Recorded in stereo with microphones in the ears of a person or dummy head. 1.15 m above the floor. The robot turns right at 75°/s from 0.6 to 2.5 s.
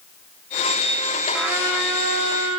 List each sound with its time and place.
1.3 s a trumpet: 175° left, 2 m; by 2.6 s 95° right, 2 m